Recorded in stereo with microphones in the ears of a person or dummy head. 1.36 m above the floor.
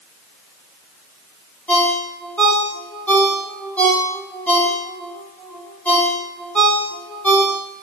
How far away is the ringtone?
About 1.9 m.